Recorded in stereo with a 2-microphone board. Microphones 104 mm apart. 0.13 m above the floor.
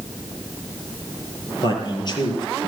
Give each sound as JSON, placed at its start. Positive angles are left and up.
{"t": 1.6, "sound": "a man speaking", "side_deg": 45, "distance_m": 3.5}